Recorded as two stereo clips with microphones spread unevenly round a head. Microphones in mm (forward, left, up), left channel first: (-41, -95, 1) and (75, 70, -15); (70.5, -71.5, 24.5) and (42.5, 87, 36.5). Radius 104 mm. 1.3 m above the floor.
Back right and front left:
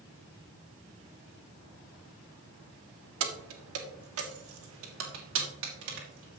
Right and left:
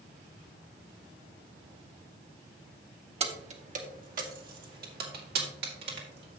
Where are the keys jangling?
50° left, 1.3 m; by 6.4 s 90° left, 2.5 m.